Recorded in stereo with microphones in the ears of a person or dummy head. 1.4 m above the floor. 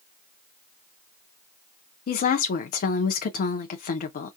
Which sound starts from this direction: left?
A woman speaking, at 2.1 s.